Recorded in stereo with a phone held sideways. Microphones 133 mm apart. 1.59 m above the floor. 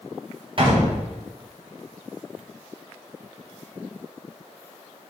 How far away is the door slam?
About 1.8 m.